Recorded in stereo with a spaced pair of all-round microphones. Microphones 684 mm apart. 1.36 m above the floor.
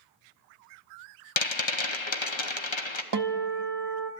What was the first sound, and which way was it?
A rattle, 40° left (ahead or behind).